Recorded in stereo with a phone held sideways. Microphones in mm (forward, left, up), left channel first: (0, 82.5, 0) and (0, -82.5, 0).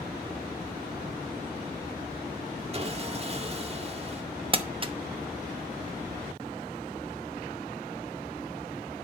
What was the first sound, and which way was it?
Sawing, 35° right (ahead or behind).